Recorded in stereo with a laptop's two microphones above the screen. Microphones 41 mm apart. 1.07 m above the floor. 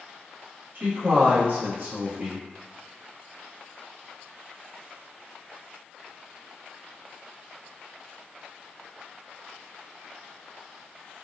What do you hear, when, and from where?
0.8 s a man speaking: 55° right (ahead or behind), 1.0 m